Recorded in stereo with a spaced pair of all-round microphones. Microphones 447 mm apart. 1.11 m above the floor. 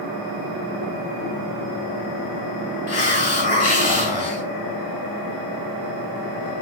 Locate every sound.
2.9 s a hiss: 60° left (ahead or behind), 0.9 m